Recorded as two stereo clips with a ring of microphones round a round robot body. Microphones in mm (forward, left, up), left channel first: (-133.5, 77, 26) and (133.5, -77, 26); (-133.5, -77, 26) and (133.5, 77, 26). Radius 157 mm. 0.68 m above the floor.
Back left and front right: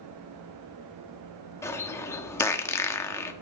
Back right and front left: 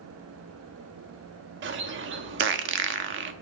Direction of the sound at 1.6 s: 70° left.